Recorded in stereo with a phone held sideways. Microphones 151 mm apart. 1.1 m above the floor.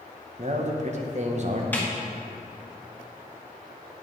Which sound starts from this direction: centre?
A snare drum, at 1.7 s.